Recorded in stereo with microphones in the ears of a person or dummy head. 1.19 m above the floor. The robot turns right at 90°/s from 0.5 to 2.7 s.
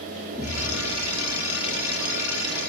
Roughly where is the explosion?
Ahead.